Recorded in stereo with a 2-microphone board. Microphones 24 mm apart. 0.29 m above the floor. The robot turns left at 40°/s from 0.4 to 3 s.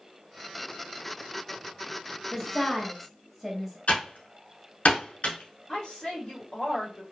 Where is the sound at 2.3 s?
5° left (ahead or behind), 1.0 m; by 3.8 s 10° right (ahead or behind), 1.0 m.